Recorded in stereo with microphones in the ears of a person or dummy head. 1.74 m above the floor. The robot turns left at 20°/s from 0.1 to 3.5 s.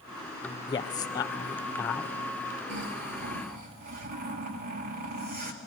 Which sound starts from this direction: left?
A man speaking, at 0.7 s.